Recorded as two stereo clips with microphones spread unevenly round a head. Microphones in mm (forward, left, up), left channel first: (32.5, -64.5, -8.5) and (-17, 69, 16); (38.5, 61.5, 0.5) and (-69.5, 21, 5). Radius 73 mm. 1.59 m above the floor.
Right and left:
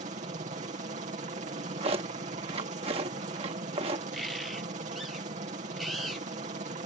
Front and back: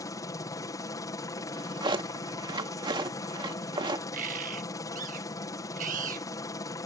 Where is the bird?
160° right.